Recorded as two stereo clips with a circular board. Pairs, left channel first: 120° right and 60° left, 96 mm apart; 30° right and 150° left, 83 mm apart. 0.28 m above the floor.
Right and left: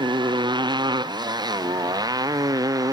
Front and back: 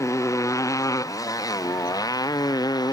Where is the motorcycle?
25° left; by 2.9 s 10° left.